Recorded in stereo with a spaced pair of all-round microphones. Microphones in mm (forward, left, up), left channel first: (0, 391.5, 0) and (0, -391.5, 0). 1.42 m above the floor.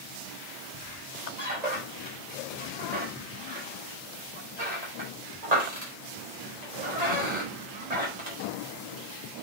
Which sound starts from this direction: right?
A squeak, at 0.7 s.